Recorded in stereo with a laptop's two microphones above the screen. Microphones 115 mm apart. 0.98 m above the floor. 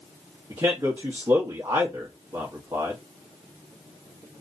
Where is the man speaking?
35° right (ahead or behind), 0.9 m.